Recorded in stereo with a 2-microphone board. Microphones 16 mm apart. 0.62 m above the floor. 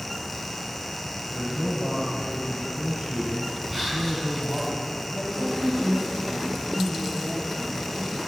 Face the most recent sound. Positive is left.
turn(degrees=15)  # may be behind; listen again after turning